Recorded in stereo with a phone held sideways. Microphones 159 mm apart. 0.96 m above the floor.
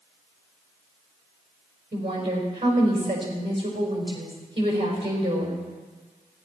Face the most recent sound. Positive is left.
turn(degrees=-40)  # may be behind; listen again after turning